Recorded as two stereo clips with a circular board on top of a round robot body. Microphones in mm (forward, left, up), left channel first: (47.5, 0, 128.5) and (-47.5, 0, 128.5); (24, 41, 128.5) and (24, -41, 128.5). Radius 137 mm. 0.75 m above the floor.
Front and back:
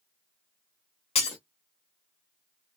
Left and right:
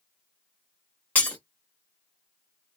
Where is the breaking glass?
20° left, 0.7 m.